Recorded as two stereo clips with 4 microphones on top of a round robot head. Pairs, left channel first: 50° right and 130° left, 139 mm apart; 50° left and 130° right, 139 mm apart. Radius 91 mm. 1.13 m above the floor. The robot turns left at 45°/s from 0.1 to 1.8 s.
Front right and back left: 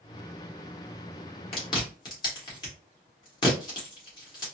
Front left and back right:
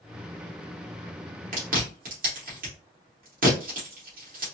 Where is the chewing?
100° right, 2.0 m; by 4.5 s 110° right, 2.0 m.